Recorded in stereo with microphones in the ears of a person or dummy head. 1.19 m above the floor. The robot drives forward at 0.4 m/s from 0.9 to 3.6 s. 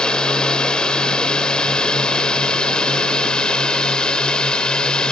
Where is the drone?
5° left (ahead or behind).